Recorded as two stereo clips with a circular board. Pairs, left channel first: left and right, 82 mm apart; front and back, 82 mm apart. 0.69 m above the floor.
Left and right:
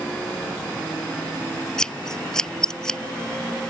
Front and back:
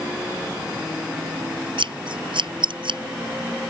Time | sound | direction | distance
1.8 | scissors | 175° left | ?